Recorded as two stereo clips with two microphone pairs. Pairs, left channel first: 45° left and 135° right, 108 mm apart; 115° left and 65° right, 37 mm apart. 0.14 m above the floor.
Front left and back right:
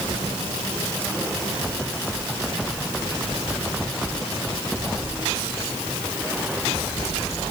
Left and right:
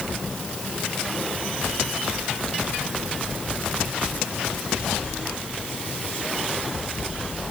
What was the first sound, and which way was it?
Only background noise.